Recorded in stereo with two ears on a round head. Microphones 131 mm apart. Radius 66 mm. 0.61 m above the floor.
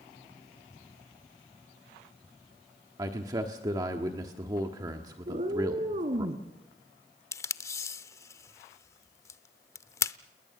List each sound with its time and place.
3.0 s a man speaking: 25° right (ahead or behind), 1.4 m
5.3 s a cat meowing: 45° right (ahead or behind), 2 m
7.3 s tape being pulled: 20° left (ahead or behind), 0.6 m